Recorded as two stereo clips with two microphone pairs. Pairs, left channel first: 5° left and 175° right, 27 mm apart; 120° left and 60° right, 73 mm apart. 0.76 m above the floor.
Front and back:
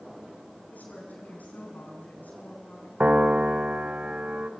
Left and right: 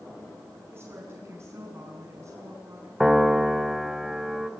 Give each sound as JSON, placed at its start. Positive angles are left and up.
{"t": 0.7, "sound": "a woman speaking", "azimuth_deg": -5, "distance_m": 7.0}
{"t": 3.0, "sound": "a piano", "azimuth_deg": -150, "distance_m": 1.1}